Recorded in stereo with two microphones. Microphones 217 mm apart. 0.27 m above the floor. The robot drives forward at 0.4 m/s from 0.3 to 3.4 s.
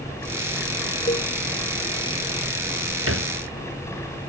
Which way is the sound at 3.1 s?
85° right.